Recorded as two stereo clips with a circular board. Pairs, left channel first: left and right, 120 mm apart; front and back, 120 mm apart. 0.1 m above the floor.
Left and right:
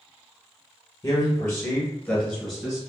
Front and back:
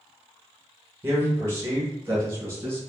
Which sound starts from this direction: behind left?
A man speaking, at 1.0 s.